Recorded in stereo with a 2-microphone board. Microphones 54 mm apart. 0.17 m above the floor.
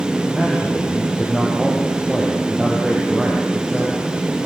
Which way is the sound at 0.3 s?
Centre (ahead or behind).